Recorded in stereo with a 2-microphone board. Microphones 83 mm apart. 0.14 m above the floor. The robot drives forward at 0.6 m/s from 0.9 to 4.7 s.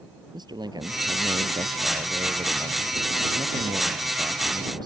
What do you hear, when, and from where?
0.3 s a man speaking: 60° right (ahead or behind); by 4.9 s 55° right (ahead or behind)